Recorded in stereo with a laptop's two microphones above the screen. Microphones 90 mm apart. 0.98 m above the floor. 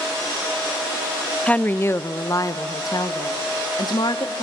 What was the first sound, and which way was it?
A woman speaking, 10° left (ahead or behind).